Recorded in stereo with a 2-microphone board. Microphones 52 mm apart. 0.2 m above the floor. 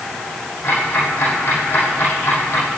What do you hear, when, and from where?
0.6 s ticking: 55° left (ahead or behind), 6 m